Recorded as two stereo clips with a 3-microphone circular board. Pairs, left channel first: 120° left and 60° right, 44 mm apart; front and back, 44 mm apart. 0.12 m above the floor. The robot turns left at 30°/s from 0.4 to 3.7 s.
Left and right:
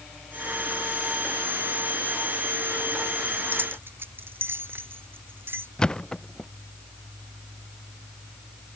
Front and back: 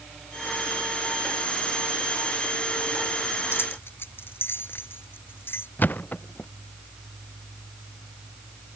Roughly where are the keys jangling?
Ahead right.